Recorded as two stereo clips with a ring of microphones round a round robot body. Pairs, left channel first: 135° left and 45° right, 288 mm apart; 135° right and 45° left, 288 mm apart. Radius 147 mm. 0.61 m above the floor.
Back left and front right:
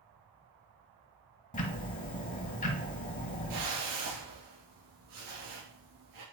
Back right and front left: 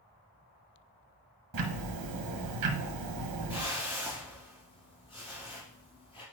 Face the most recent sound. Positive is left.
turn(degrees=-60)